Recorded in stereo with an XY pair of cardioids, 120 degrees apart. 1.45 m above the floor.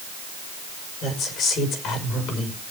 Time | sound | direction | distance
1.0 | a woman speaking | 65° left | 5 m